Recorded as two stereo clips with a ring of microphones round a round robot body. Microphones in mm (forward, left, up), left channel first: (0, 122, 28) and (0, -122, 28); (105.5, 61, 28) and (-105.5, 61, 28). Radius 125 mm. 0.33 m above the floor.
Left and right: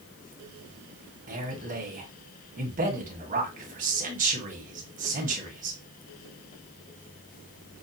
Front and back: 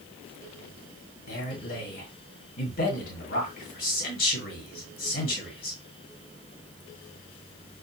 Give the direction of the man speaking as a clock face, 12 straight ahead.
1 o'clock.